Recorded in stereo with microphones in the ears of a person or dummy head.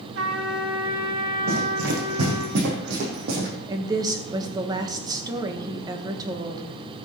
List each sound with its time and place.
0.1 s a trumpet: 80° right, 2.5 m
1.5 s running footsteps: 75° right (ahead or behind), 5 m; by 3.5 s 65° right (ahead or behind), 3.5 m
3.7 s a woman speaking: 20° right (ahead or behind), 1.7 m